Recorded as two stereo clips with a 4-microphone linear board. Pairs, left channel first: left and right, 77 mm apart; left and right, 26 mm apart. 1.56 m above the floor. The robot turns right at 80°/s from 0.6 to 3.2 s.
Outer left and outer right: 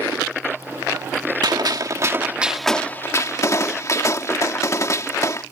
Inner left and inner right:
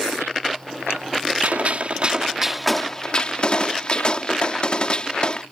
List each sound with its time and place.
1.4 s a gunshot: 95° right; by 5.4 s 45° left